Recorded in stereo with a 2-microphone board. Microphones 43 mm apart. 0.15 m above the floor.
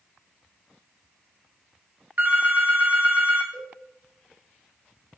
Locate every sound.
2.2 s a phone ringing: 45° right (ahead or behind), 0.9 m
3.5 s a cowbell: 30° left (ahead or behind), 1.7 m